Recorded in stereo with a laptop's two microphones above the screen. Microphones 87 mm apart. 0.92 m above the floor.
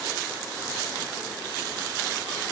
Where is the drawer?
No drawer in this recording.